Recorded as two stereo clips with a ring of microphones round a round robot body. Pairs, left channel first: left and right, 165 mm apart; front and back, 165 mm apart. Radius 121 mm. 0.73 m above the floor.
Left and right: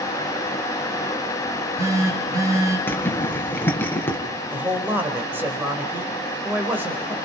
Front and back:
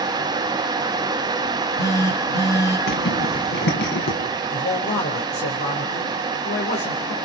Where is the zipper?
15° left, 4.5 m.